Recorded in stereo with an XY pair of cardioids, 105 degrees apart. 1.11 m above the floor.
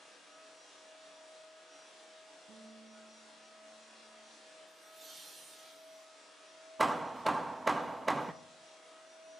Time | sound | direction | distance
2.5 | a guitar | 65° right | 4.5 m
4.7 | laughter | 35° right | 9 m
6.8 | hammering | 20° right | 0.9 m